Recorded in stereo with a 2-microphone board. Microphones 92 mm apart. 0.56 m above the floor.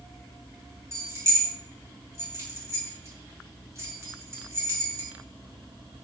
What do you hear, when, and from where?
0.9 s keys jangling: 30° right (ahead or behind), 0.9 m